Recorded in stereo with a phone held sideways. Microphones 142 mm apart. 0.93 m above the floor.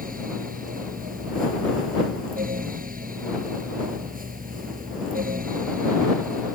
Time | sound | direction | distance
0.0 | a fan | 85° right | ?